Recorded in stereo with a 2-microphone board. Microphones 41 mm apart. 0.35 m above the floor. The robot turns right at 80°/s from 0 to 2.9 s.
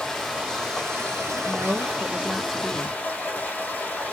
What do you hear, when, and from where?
0.0 s running water: 160° left, 2.5 m; by 4.1 s 35° left, 2.5 m
1.4 s a woman speaking: 100° right, 1.8 m; by 3.0 s 25° left, 1.8 m